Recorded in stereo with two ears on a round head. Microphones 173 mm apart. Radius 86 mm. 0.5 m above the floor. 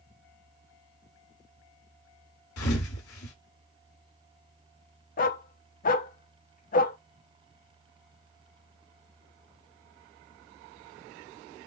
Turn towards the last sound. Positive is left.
turn(degrees=45)  # may be behind; listen again after turning